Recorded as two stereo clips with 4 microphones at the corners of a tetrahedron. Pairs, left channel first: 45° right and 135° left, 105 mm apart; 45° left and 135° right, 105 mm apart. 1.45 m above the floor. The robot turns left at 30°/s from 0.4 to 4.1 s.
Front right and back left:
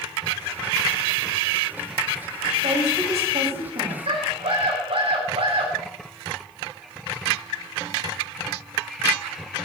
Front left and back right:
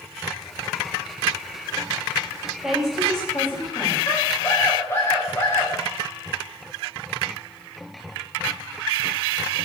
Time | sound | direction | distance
2.6 | a woman speaking | 145° left | 9.5 m
4.1 | a scream | 110° left | 8.5 m